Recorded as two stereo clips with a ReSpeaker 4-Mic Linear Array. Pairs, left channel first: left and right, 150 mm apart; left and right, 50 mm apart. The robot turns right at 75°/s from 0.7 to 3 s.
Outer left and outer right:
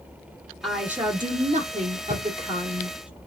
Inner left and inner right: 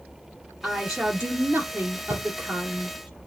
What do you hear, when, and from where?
0.6 s a woman speaking: straight behind, 1.8 m; by 3.1 s 10° right, 1.8 m
2.1 s a drawer: 70° left (ahead or behind), 1.5 m